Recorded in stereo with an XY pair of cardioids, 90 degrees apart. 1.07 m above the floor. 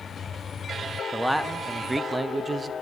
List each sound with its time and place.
1.1 s a man speaking: 5° right, 1.5 m; by 2.7 s 40° right, 1.0 m